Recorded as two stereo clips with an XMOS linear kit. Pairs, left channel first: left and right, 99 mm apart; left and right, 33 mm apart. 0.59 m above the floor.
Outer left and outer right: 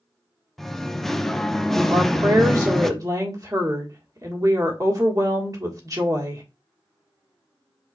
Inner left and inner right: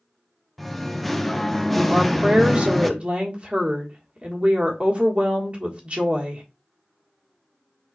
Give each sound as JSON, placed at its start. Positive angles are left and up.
{"t": 0.6, "sound": "singing", "side_deg": 0, "distance_m": 0.5}
{"t": 1.9, "sound": "a woman speaking", "side_deg": -40, "distance_m": 1.5}